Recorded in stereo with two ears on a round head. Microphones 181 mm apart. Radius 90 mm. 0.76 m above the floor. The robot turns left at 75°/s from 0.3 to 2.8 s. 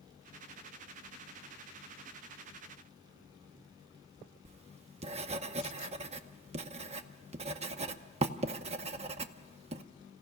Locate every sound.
4.5 s writing: 30° right (ahead or behind), 0.8 m